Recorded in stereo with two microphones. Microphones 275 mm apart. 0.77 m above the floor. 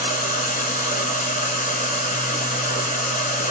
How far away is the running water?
About 0.9 m.